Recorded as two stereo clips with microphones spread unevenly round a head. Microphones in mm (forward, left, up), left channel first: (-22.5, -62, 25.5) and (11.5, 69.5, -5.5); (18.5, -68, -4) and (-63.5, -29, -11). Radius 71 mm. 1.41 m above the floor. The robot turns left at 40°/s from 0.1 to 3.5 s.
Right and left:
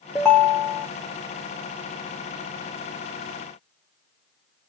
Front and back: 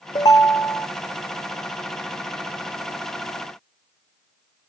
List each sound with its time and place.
0.1 s a ringtone: 35° right, 0.6 m; by 0.9 s 60° right, 0.6 m